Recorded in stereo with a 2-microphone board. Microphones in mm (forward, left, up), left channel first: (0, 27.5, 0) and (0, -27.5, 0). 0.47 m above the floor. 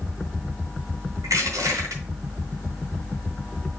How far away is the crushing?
About 3 m.